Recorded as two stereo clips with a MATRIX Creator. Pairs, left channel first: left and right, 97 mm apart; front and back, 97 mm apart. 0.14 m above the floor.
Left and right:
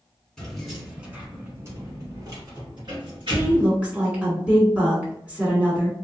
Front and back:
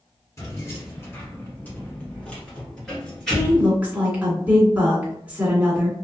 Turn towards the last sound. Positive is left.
turn(degrees=-135)